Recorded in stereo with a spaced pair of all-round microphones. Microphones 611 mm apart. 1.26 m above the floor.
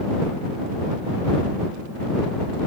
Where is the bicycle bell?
No bicycle bell in this recording.